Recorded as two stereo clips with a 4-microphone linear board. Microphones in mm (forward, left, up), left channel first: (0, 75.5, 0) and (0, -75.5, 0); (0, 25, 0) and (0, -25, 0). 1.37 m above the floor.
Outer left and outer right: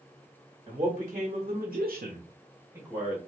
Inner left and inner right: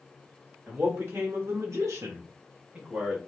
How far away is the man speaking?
About 1.6 m.